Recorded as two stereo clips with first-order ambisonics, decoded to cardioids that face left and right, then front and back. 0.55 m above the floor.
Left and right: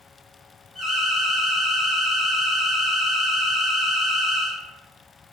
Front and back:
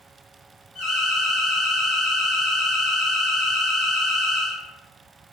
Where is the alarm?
15° right, 1.7 m.